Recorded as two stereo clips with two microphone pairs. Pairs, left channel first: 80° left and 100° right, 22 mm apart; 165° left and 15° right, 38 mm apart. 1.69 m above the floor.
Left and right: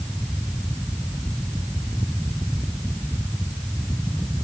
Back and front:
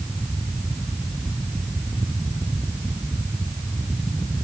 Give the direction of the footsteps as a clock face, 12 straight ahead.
I don't hear footsteps.